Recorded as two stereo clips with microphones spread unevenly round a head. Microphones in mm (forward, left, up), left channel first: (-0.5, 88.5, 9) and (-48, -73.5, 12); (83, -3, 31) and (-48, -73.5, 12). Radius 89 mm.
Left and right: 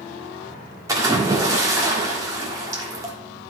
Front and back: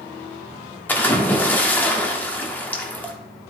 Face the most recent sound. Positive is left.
turn(degrees=-40)